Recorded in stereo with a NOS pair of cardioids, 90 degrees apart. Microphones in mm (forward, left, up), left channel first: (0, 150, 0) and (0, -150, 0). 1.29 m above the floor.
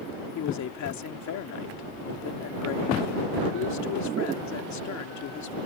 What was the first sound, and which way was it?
A man speaking, 65° left.